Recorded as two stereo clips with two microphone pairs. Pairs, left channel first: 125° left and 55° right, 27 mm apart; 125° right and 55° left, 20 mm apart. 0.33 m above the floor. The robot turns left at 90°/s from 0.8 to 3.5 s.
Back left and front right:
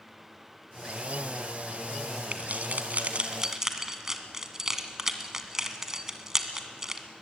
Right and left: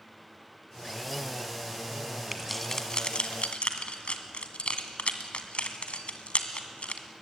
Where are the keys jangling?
20° right, 1.7 m; by 7.0 s 130° right, 1.7 m.